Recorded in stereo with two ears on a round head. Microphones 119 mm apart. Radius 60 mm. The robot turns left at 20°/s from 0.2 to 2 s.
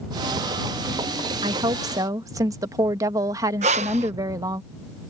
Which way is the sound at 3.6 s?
50° right (ahead or behind).